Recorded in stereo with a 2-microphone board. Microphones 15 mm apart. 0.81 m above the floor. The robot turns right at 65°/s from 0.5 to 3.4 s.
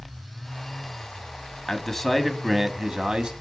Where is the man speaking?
155° left, 1.2 m; by 3.3 s 100° right, 1.2 m.